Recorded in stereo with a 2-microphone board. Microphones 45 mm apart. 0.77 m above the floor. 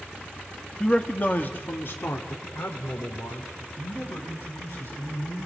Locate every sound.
0.8 s a man speaking: 15° left (ahead or behind), 1.3 m; by 5.5 s 80° left, 6 m